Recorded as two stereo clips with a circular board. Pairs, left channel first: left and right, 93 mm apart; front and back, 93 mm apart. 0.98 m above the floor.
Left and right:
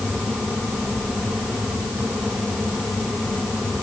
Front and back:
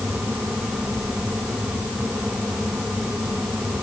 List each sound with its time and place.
Only background noise.